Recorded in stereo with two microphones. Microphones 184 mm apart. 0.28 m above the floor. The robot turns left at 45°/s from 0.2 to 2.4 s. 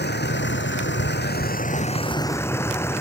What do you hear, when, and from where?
0.0 s a vehicle: 110° left; by 3.0 s 15° left